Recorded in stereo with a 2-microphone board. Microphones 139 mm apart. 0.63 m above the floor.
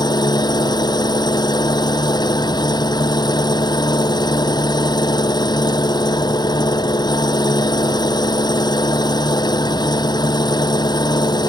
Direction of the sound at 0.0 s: 30° left (ahead or behind).